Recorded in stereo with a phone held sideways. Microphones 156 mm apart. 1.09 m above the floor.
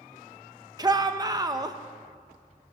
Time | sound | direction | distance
0.8 | a shout | 25° right (ahead or behind) | 0.9 m